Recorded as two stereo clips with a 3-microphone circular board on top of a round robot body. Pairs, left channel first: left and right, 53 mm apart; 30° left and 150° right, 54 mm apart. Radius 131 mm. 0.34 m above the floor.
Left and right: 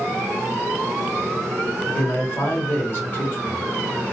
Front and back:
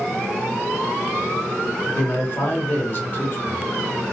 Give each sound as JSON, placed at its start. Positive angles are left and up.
{"t": 1.9, "sound": "a man speaking", "azimuth_deg": 60, "distance_m": 1.3}